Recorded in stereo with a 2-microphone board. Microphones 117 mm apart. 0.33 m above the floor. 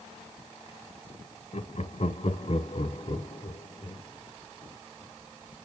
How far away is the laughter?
About 1.9 m.